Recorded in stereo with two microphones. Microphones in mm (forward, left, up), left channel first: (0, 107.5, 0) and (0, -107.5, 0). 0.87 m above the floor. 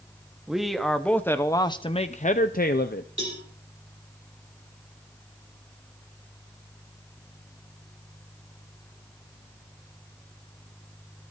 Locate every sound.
0.5 s a man speaking: 5° right (ahead or behind), 1.2 m; by 3.1 s 50° left (ahead or behind), 0.8 m
3.2 s a cowbell: 80° right, 5 m